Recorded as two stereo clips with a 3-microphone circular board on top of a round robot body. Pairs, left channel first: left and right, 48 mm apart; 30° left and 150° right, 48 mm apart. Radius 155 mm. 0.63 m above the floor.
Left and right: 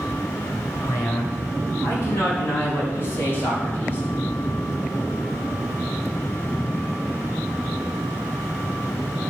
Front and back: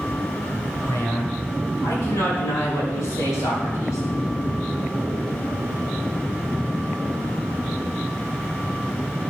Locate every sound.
0.8 s a man speaking: 55° left, 5.5 m; by 4.0 s 35° left, 4.5 m